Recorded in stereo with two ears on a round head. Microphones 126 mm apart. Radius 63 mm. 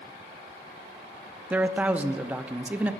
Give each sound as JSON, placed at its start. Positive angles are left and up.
{"t": 1.5, "sound": "a man speaking", "side_deg": -10, "distance_m": 0.5}